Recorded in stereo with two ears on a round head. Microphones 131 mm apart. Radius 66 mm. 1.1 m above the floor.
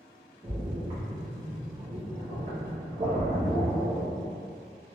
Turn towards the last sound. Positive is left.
turn(degrees=-45)  # may be behind; listen again after turning